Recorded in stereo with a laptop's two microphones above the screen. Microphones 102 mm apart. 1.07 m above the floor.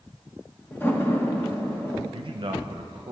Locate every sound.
0.7 s a door slam: 20° left (ahead or behind), 0.8 m
2.1 s a man speaking: 55° right (ahead or behind), 0.9 m